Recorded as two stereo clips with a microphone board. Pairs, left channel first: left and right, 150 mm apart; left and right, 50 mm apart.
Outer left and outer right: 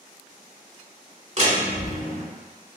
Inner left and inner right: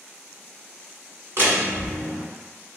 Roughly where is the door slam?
Right.